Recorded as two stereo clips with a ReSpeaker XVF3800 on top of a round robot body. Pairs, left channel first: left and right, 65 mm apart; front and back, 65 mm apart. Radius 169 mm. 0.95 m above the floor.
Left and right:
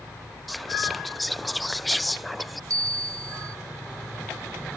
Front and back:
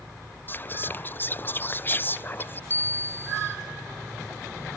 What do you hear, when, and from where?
0.5 s whispering: straight ahead
2.7 s a bell: 60° right